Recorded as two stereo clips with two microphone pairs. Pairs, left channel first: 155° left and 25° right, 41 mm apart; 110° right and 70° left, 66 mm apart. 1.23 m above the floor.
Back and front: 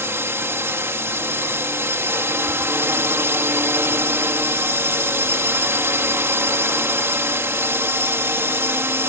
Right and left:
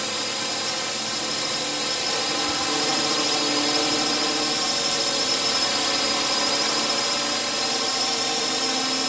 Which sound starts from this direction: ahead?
A drone, at 0.0 s.